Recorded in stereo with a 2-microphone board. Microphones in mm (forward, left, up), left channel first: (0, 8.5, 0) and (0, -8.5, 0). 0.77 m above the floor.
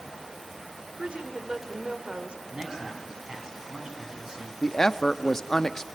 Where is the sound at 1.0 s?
75° right (ahead or behind), 2.5 m.